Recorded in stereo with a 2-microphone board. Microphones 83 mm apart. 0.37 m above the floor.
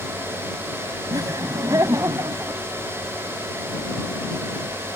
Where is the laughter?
50° right (ahead or behind); by 2.6 s 40° right (ahead or behind).